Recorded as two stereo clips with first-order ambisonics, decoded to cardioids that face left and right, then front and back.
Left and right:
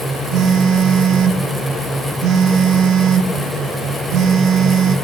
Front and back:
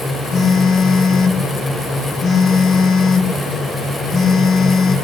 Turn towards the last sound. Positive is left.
turn(degrees=-55)